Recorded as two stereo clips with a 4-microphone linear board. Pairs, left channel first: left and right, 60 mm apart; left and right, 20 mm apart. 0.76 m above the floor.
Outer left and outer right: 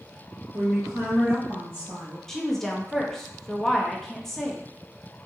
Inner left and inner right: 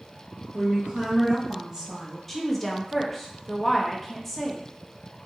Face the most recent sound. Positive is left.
turn(degrees=5)  # may be behind; listen again after turning